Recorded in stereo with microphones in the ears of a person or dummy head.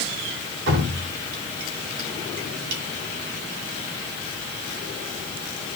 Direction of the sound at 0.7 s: 65° right (ahead or behind).